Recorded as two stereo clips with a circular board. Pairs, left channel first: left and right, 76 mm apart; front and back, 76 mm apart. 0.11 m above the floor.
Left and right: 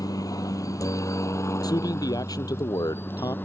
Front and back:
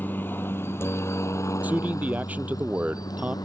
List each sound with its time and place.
0.0 s a helicopter: 65° left; by 3.5 s 30° left
1.6 s a man speaking: 115° left